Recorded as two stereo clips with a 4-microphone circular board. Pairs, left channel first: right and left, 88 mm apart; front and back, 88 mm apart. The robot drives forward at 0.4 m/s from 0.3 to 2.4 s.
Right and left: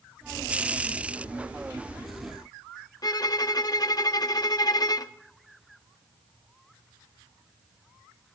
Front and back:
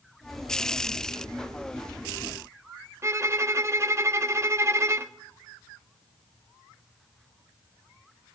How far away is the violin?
About 0.5 m.